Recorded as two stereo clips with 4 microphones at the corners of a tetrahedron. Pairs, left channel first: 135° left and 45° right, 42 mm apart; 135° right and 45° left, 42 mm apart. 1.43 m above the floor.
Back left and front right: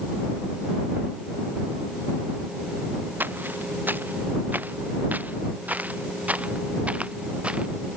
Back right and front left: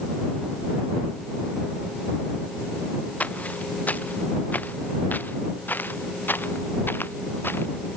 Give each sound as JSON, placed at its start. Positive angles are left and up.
{"t": 3.2, "sound": "footsteps", "azimuth_deg": -80}